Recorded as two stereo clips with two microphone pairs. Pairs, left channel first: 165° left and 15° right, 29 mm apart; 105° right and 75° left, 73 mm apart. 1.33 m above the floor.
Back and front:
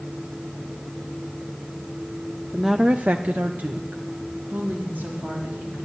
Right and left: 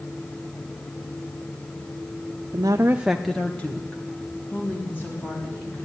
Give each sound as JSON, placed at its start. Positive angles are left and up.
{"t": 2.5, "sound": "a woman speaking", "azimuth_deg": 80, "distance_m": 0.6}